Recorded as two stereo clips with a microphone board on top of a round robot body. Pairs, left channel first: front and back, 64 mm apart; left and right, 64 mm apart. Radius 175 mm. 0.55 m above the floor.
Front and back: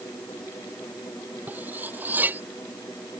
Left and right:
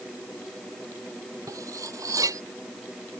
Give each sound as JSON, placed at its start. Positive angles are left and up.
{"t": 1.5, "sound": "cutlery clinking", "azimuth_deg": -120}